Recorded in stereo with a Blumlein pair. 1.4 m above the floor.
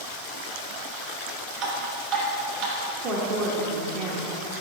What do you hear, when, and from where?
1.6 s dripping: 45° right, 2 m
3.0 s a woman speaking: 30° right, 1.1 m